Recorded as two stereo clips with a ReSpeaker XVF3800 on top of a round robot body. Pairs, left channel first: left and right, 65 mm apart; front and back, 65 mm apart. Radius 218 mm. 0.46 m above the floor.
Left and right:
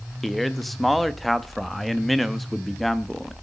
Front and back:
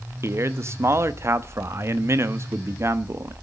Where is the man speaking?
Straight behind, 1.2 m.